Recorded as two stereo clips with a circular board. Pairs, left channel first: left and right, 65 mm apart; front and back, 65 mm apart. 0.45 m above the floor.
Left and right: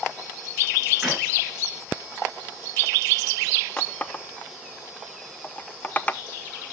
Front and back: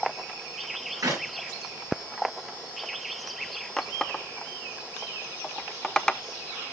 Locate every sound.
1.0 s a clap: 175° right, 6 m
3.8 s a running tap: 70° left, 0.6 m